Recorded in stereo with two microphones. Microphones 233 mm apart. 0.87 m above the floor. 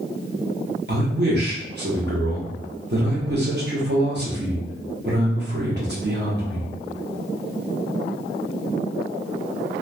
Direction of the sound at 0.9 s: 45° right (ahead or behind).